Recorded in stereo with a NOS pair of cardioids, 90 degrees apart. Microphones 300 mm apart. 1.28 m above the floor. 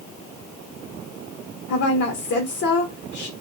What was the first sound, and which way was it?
A woman speaking, 55° left.